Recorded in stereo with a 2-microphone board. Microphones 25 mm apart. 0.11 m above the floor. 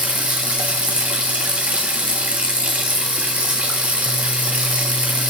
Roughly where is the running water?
Right.